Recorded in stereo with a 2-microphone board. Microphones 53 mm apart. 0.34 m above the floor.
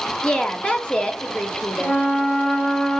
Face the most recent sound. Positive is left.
turn(degrees=15)  # may be behind; listen again after turning